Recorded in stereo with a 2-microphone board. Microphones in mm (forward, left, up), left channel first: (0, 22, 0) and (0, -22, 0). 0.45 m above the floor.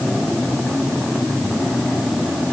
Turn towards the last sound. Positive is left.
No sound to turn to.